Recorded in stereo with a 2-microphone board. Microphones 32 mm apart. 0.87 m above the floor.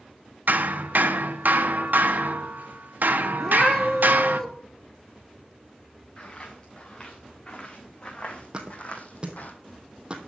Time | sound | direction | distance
0.5 | hammering | 65° right (ahead or behind) | 0.9 m
3.4 | a cat meowing | 15° left (ahead or behind) | 1.7 m
6.2 | footsteps | 25° left (ahead or behind) | 5 m
8.5 | a thud | 30° right (ahead or behind) | 1.8 m